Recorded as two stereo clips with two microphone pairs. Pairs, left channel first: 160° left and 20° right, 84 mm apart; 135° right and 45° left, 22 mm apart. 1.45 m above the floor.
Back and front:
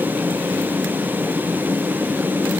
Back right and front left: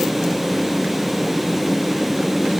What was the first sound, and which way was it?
Only background noise.